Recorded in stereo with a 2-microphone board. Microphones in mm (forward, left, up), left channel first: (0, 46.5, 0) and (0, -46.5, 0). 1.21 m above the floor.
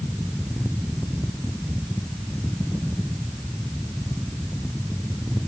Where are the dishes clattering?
I don't hear dishes clattering.